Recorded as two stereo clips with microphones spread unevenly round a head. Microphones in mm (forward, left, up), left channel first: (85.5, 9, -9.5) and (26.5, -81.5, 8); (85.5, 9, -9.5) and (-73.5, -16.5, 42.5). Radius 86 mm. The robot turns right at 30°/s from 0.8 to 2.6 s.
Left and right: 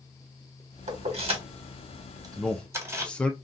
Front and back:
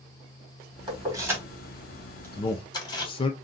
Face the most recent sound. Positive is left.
turn(degrees=-10)